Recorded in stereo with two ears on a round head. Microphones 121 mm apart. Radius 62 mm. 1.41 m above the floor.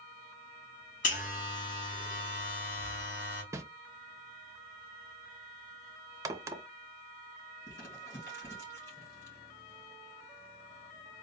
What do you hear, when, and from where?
1.0 s a buzzer: 65° left (ahead or behind), 3 m
3.5 s a whoosh: 20° right (ahead or behind), 0.6 m
6.2 s a crack: 25° right (ahead or behind), 0.7 m
7.7 s crumpling: 30° left (ahead or behind), 3.5 m